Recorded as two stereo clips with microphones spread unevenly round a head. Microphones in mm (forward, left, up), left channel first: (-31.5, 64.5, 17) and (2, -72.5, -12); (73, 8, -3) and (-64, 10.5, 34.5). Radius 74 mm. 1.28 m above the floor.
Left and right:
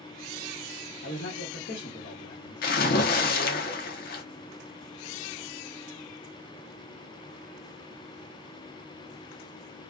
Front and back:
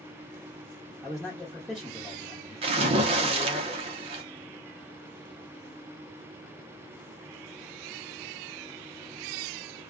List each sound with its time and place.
1.0 s a man speaking: 90° left, 1.1 m
2.6 s a splash: 130° left, 0.7 m